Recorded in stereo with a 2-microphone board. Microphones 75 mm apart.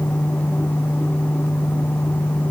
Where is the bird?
No bird in this recording.